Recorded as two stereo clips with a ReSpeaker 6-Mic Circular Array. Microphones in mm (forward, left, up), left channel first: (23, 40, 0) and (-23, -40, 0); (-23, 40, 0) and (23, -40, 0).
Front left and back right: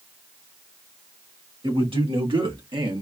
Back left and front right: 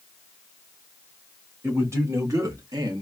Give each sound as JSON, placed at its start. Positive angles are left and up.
{"t": 1.6, "sound": "a man speaking", "azimuth_deg": -120, "distance_m": 2.0}